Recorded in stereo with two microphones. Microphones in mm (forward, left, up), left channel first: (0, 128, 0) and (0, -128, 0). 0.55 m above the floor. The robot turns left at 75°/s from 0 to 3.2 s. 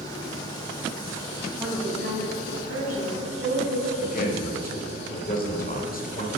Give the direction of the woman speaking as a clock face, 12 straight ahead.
12 o'clock.